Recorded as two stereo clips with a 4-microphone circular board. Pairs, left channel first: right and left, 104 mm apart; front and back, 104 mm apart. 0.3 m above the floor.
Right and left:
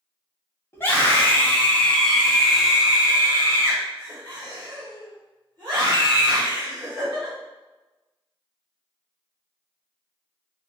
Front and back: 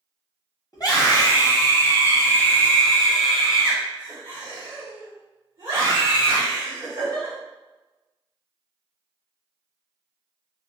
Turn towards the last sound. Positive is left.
turn(degrees=130)